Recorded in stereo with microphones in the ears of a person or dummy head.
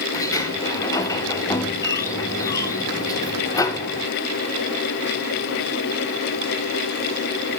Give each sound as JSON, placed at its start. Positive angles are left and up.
{"t": 0.1, "sound": "a sliding door", "side_deg": 20, "distance_m": 0.8}